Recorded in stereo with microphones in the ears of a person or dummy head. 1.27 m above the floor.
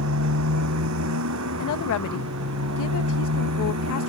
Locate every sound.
0.0 s a motorcycle: 80° right; by 4.1 s 85° right
1.6 s a woman speaking: 70° left (ahead or behind)